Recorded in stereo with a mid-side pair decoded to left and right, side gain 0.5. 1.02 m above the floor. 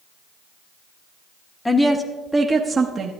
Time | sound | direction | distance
1.6 | a woman speaking | 15° left | 1.1 m